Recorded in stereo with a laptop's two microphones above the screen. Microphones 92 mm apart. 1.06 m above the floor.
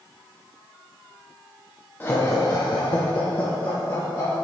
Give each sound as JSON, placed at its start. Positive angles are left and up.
{"t": 2.0, "sound": "laughter", "side_deg": 20, "distance_m": 0.6}